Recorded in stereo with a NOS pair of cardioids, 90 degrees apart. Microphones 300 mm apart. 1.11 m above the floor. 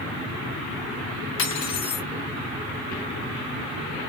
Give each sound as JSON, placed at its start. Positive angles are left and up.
{"t": 1.4, "sound": "cutlery clinking", "azimuth_deg": 65, "distance_m": 1.5}